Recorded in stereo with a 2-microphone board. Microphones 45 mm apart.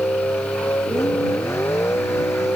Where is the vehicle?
75° left (ahead or behind).